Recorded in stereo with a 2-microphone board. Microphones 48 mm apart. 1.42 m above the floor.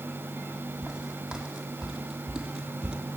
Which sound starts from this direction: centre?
Footsteps, at 0.8 s.